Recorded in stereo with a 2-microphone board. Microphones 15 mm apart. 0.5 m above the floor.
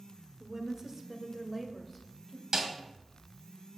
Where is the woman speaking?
40° right (ahead or behind), 1.2 m; by 2.4 s 5° right (ahead or behind), 2 m.